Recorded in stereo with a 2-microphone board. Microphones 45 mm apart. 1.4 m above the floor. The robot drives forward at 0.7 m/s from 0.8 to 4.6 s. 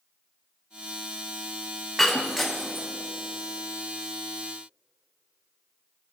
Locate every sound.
2.0 s breaking glass: centre (ahead or behind), 1.0 m